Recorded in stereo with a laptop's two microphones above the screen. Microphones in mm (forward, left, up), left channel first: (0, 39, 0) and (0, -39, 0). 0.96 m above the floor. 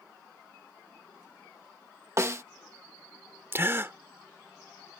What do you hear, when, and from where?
2.2 s a snare drum: 35° right (ahead or behind)
3.5 s a gasp: 30° right (ahead or behind)